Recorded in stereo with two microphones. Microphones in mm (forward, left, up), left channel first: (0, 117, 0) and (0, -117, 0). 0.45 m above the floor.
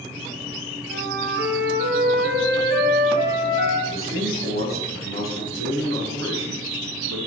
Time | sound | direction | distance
0.9 | a flute | 50° right (ahead or behind) | 2.5 m
3.9 | a man speaking | 65° right (ahead or behind) | 4.5 m